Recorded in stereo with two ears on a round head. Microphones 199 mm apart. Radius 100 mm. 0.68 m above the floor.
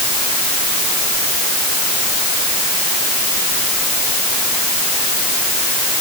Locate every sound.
Only background noise.